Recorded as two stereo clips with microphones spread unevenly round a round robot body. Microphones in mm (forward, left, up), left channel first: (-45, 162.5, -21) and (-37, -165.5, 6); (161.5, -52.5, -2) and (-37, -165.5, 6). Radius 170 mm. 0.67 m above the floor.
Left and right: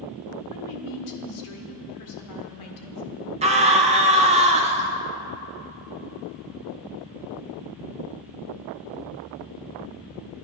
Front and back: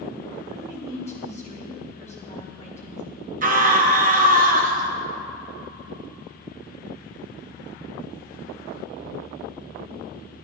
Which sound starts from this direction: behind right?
A scream, at 3.4 s.